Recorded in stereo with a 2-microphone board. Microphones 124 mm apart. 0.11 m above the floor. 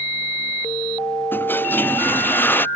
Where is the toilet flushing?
15° left (ahead or behind).